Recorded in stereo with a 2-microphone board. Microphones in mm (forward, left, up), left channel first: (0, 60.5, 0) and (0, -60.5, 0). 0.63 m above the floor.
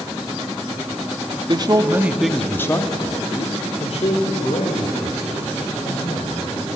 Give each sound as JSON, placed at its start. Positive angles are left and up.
{"t": 1.5, "sound": "a man speaking", "side_deg": -40, "distance_m": 1.3}